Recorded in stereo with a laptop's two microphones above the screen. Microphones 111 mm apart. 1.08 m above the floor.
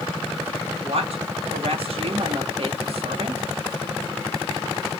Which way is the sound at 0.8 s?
65° right (ahead or behind).